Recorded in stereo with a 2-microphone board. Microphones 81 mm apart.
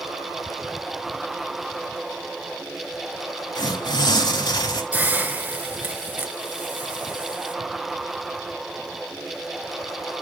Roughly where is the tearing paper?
Left.